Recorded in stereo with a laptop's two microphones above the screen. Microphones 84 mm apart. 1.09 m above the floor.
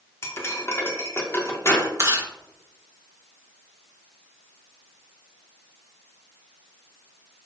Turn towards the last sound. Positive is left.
turn(degrees=-35)  # may be behind; listen again after turning